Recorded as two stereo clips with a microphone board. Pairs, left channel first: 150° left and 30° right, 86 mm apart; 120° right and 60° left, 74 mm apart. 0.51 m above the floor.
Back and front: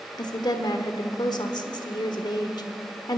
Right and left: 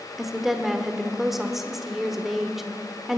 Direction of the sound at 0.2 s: 145° left.